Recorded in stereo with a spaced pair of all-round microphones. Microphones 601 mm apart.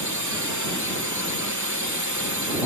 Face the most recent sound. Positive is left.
turn(degrees=-30)  # may be behind; listen again after turning